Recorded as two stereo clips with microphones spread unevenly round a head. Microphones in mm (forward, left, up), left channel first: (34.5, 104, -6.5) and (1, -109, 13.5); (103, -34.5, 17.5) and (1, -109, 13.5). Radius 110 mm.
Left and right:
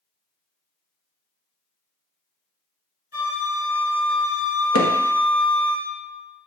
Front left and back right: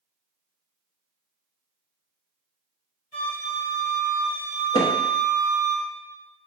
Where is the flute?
135° left, 2 m.